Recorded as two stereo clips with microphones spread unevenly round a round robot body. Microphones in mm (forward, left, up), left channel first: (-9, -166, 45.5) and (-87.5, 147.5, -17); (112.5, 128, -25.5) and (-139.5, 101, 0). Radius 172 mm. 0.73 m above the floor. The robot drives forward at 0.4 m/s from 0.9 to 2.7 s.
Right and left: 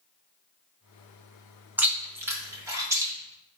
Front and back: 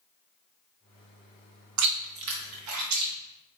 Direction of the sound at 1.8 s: 170° right.